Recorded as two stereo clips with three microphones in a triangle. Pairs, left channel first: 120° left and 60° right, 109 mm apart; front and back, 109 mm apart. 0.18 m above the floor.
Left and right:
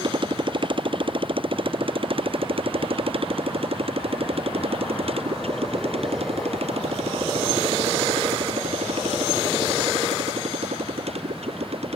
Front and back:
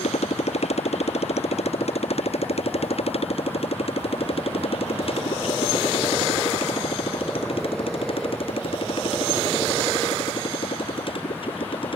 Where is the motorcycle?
15° right; by 12.0 s 40° right.